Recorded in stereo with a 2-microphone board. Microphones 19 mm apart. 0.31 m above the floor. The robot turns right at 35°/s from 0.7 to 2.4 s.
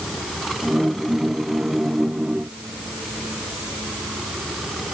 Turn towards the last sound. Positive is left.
No sound to turn to.